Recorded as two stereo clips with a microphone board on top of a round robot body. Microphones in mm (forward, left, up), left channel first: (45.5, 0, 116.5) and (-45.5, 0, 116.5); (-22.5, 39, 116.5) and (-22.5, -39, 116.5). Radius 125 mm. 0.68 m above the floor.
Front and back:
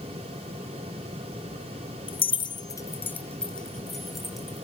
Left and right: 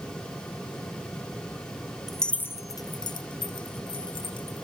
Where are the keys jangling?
Straight ahead, 0.8 m; by 4.6 s 95° left, 2.5 m.